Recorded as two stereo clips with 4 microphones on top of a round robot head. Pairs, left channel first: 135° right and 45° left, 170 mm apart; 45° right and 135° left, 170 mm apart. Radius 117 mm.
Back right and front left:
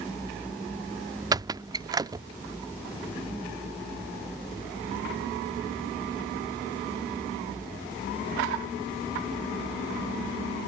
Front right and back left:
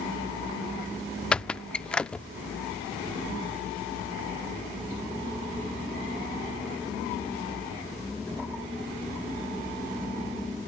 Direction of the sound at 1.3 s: 30° left.